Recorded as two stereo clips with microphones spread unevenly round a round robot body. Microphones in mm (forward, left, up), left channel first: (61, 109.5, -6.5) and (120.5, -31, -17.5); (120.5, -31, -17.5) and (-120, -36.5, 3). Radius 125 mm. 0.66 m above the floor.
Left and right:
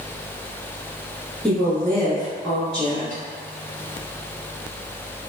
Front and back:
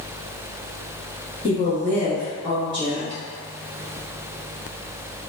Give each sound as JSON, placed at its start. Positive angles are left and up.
{"t": 1.4, "sound": "a woman speaking", "azimuth_deg": 25, "distance_m": 0.9}